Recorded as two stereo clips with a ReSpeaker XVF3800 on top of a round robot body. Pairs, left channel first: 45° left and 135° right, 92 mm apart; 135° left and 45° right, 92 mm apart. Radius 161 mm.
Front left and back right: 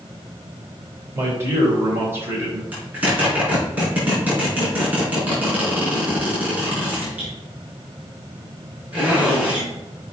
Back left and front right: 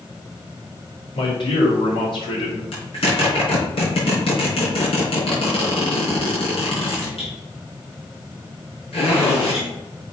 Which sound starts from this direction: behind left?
A zipper, at 2.7 s.